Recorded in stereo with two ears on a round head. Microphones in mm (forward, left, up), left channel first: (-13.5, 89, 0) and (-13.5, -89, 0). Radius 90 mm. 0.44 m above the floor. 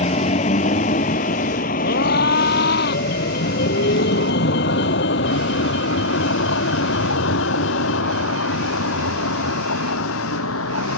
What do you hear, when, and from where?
0.0 s a vehicle: 30° left (ahead or behind); by 11.0 s 75° left (ahead or behind)
1.8 s a scream: 50° left (ahead or behind)